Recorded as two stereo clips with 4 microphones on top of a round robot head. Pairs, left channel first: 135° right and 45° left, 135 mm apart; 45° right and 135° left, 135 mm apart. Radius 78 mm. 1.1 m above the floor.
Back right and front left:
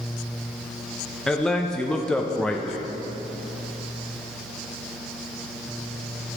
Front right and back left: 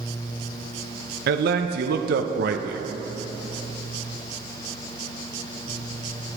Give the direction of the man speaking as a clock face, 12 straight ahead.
7 o'clock.